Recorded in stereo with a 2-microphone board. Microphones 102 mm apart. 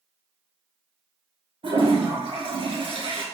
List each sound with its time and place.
1.6 s a toilet flushing: 65° right (ahead or behind), 1.4 m